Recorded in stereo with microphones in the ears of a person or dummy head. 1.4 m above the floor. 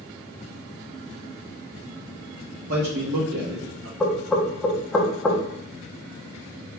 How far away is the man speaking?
About 0.9 m.